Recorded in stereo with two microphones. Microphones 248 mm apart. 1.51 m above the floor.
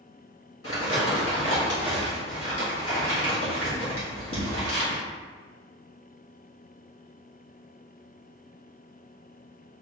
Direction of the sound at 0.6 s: 60° left (ahead or behind).